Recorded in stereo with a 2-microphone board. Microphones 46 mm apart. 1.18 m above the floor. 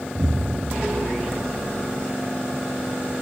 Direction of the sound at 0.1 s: 55° right (ahead or behind).